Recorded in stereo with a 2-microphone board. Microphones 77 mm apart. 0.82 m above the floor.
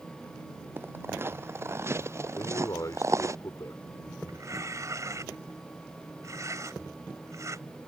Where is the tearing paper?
40° right (ahead or behind).